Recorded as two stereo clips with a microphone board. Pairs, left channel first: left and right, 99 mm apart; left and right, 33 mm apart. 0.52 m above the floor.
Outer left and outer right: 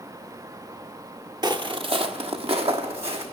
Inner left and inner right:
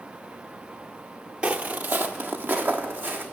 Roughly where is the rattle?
No rattle in this recording.